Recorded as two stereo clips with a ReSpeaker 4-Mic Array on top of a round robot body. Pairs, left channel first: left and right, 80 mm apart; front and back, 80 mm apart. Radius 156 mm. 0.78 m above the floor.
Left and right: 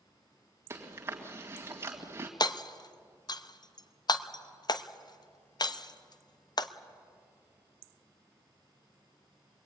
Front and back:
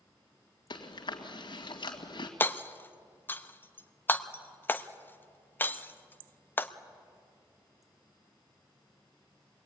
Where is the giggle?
No giggle in this recording.